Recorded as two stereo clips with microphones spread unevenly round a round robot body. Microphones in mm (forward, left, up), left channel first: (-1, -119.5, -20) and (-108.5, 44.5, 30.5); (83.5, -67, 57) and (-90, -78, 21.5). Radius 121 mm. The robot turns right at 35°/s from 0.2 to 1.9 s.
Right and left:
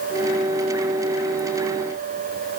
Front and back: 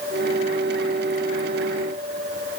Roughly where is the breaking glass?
No breaking glass in this recording.